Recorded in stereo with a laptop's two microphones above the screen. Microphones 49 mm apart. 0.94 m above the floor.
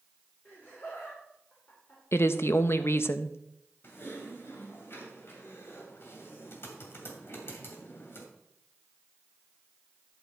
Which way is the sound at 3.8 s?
50° left (ahead or behind).